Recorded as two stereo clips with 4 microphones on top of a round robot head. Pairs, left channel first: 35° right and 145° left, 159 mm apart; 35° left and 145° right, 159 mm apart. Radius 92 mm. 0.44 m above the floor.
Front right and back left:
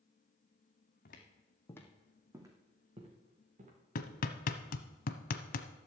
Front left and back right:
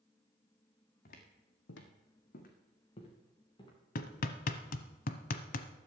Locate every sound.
1.1 s footsteps: straight ahead, 1.8 m; by 3.7 s 100° left, 3.5 m
4.0 s hammering: straight ahead, 0.9 m